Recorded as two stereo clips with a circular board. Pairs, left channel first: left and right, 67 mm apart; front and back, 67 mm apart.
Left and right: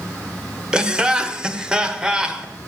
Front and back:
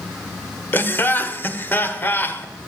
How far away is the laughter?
About 1.1 m.